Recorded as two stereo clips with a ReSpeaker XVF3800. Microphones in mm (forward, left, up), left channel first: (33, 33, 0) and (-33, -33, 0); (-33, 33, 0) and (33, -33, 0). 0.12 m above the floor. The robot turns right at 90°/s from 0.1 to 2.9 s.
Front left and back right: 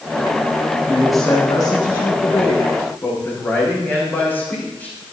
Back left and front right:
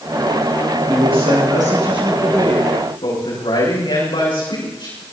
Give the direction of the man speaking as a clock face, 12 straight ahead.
2 o'clock.